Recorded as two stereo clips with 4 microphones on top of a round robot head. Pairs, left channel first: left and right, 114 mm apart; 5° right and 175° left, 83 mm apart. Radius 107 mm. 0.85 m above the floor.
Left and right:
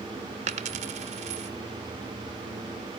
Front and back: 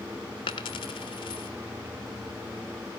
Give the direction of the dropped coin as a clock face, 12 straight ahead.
2 o'clock.